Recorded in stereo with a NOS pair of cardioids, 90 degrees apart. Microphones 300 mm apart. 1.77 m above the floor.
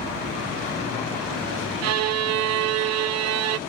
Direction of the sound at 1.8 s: 60° right.